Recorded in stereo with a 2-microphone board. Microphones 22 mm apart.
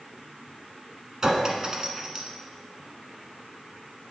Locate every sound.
1.2 s a clink: 30° right (ahead or behind), 0.9 m